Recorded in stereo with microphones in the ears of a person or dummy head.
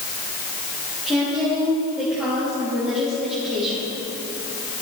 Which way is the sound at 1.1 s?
5° right (ahead or behind).